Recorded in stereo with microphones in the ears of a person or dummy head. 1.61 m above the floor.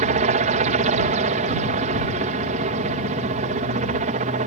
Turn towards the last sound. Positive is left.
turn(degrees=-40)  # may be behind; listen again after turning